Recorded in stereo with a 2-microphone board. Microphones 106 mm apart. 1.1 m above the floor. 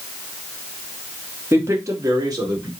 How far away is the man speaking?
About 0.9 m.